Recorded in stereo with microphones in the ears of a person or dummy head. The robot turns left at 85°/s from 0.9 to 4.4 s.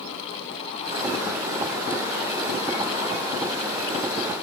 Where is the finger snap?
No finger snap in this recording.